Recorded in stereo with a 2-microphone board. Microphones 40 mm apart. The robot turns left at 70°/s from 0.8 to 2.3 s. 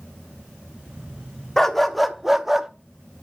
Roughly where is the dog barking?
Centre.